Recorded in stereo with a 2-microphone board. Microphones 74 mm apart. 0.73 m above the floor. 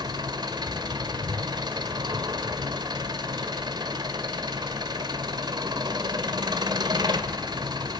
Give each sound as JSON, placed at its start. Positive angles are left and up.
{"t": 0.0, "sound": "an engine running", "side_deg": -75, "distance_m": 1.7}